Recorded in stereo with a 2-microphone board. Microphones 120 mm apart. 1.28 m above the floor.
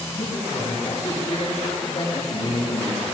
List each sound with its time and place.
0.1 s a man speaking: 65° left (ahead or behind), 9 m; by 3.0 s 50° left (ahead or behind), 12 m